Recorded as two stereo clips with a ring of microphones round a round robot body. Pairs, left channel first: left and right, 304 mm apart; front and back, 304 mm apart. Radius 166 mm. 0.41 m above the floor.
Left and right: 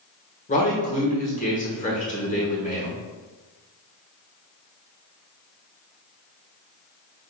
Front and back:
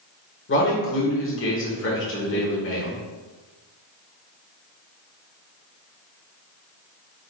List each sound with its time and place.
0.5 s a man speaking: 35° left, 1.3 m